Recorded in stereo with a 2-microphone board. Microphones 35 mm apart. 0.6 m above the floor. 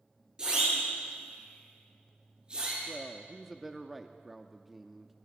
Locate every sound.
0.4 s a siren: 25° right (ahead or behind), 9.5 m; by 2.8 s 30° right (ahead or behind), 9 m
2.9 s a man speaking: 5° right (ahead or behind), 0.9 m